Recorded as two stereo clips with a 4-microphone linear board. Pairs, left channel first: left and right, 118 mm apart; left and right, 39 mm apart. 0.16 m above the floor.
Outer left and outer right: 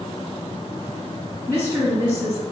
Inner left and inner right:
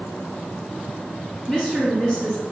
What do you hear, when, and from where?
1.5 s a woman speaking: 25° left (ahead or behind), 1.9 m